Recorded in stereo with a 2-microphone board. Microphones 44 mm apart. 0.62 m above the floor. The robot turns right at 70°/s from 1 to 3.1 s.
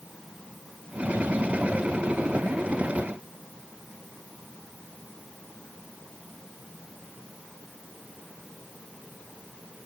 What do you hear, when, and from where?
Only background noise.